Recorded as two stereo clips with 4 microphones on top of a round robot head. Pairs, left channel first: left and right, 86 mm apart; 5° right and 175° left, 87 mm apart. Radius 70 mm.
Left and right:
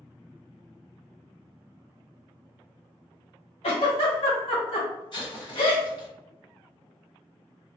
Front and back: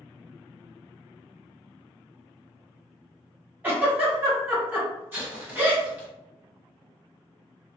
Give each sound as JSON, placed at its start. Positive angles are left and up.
{"t": 3.6, "sound": "a giggle", "azimuth_deg": 105, "distance_m": 1.4}
{"t": 5.1, "sound": "an explosion", "azimuth_deg": 110, "distance_m": 1.9}